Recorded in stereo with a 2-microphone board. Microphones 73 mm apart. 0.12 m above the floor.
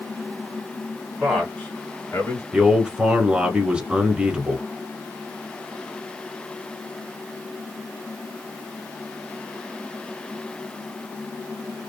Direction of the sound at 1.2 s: Centre (ahead or behind).